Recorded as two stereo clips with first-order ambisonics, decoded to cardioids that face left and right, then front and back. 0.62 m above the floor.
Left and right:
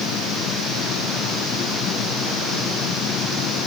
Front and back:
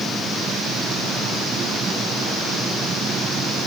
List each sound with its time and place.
Only background noise.